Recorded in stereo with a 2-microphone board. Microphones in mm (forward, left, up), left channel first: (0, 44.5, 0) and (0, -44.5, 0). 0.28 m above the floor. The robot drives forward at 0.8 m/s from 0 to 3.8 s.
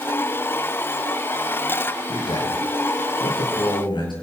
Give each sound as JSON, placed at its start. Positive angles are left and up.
{"t": 2.1, "sound": "a man speaking", "side_deg": 70, "distance_m": 6.5}